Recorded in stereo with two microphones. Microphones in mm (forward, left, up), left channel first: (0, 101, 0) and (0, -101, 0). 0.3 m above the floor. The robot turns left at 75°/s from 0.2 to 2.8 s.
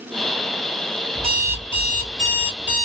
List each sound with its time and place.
1.1 s an alarm clock: 145° right, 2 m; by 2.9 s 95° left, 2 m